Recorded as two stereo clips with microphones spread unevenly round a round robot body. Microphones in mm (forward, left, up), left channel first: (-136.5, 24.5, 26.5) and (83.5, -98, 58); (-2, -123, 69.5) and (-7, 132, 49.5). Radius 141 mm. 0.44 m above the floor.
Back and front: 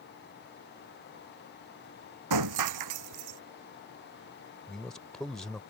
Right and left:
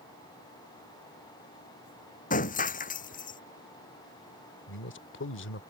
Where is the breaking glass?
30° right.